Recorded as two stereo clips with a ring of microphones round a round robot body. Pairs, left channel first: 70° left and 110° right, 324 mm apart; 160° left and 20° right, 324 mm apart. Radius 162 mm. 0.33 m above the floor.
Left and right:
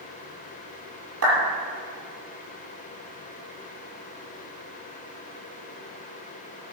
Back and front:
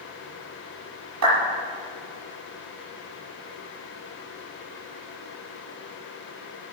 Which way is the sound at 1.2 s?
65° right.